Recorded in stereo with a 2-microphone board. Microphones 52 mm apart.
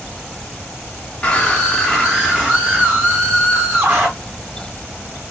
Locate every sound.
1.2 s a scream: 20° left (ahead or behind), 0.8 m; by 4.1 s 40° right (ahead or behind), 1.7 m